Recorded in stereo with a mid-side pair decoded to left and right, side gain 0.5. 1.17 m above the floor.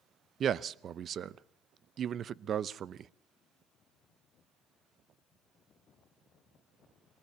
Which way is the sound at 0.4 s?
50° right.